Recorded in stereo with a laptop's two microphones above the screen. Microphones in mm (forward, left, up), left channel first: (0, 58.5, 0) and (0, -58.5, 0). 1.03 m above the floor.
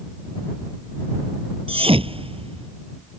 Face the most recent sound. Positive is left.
turn(degrees=-55)  # may be behind; listen again after turning